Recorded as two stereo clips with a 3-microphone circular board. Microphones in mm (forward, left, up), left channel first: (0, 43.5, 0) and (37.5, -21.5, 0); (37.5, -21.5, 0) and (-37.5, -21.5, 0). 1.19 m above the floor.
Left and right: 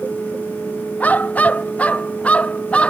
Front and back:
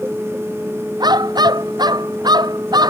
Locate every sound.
1.0 s a dog barking: 175° right; by 2.9 s 170° right